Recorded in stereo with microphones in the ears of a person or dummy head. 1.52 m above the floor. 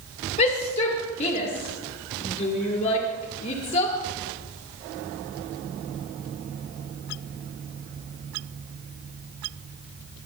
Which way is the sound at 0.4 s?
35° left (ahead or behind).